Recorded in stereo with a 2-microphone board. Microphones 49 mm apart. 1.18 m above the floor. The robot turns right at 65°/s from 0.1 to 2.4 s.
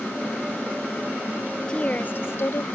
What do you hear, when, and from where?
1.7 s a woman speaking: 20° left; by 2.6 s 65° left